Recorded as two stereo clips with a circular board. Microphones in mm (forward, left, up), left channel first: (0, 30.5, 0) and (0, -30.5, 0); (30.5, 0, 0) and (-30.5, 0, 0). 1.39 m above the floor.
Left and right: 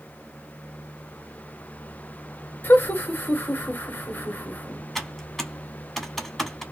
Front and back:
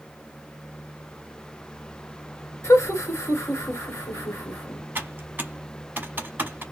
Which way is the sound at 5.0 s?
175° left.